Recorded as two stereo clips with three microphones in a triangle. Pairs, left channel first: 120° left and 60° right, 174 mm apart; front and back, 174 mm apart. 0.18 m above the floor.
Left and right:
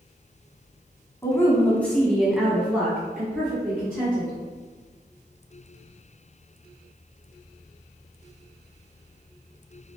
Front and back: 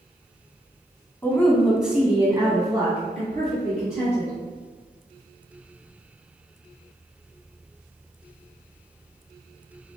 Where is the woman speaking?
65° left, 1.1 m; by 4.3 s 130° right, 2 m.